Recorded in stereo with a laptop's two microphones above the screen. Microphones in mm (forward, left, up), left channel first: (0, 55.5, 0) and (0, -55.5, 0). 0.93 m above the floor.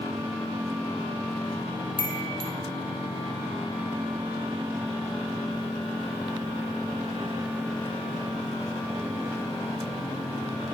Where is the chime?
45° right (ahead or behind), 0.7 m.